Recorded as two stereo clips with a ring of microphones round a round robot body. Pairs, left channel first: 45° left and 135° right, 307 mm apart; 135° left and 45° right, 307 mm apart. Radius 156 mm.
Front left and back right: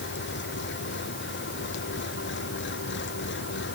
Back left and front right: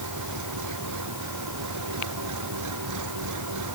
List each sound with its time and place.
0.0 s an engine running: 10° right